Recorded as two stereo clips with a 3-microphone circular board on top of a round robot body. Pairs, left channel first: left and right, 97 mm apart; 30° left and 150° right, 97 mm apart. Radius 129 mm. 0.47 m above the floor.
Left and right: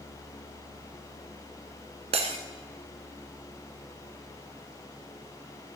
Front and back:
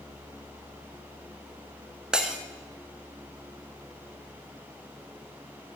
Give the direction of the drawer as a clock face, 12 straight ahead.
I don't hear a drawer.